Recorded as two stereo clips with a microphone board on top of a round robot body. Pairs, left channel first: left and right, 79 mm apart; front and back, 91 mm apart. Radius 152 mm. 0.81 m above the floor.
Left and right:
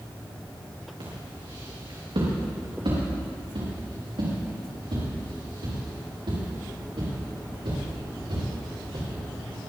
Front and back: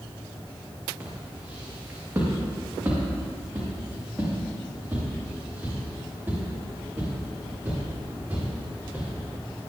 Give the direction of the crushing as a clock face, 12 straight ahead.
No crushing in this recording.